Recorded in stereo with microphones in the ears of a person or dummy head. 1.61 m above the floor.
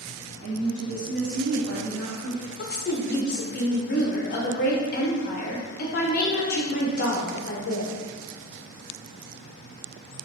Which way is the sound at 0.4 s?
75° right (ahead or behind).